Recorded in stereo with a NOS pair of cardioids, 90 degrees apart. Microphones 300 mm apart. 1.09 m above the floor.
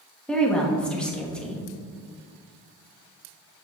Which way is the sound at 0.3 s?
5° left.